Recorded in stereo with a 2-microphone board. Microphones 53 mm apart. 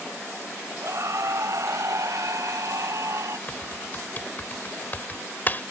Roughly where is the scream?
Right.